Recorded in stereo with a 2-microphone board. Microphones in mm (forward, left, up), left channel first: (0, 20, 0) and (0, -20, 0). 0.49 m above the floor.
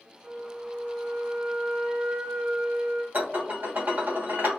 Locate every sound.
0.2 s a flute: 40° right (ahead or behind), 1.5 m
3.1 s dishes clattering: 50° right (ahead or behind), 1.1 m